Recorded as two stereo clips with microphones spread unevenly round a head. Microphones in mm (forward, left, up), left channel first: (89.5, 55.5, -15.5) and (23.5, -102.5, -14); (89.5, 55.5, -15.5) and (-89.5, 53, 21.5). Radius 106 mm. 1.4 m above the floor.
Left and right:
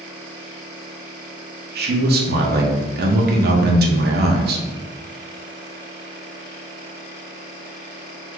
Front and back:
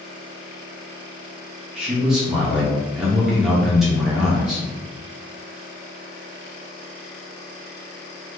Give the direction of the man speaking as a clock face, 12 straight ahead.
3 o'clock.